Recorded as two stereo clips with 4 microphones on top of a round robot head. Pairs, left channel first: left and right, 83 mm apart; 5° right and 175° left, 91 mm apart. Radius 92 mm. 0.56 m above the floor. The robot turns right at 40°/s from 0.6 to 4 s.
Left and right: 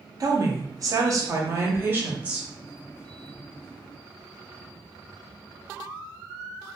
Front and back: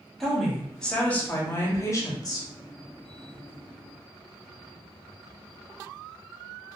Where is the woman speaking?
90° right, 0.8 m; by 2.5 s 15° right, 0.8 m.